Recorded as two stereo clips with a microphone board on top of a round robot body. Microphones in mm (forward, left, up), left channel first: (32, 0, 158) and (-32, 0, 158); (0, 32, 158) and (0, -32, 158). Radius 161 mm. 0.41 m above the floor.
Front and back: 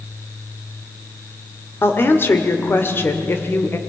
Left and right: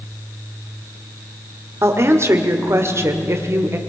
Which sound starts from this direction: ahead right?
A woman speaking, at 1.8 s.